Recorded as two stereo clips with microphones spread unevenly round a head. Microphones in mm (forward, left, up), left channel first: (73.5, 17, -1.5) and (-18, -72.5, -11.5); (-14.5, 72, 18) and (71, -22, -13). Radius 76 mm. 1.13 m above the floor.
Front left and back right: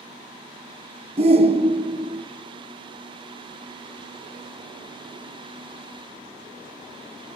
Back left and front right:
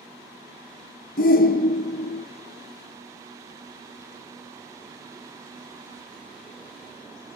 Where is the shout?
170° left, 0.7 m.